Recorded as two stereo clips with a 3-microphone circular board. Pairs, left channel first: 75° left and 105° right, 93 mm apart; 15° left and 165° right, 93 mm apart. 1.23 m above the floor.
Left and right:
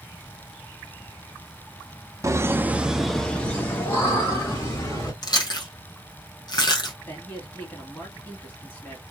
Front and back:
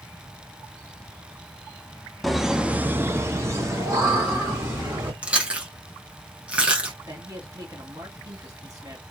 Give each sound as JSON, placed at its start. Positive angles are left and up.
{"t": 2.2, "sound": "laughter", "azimuth_deg": -75, "distance_m": 0.6}
{"t": 5.2, "sound": "chewing", "azimuth_deg": 120, "distance_m": 0.9}
{"t": 7.1, "sound": "a man speaking", "azimuth_deg": 145, "distance_m": 1.8}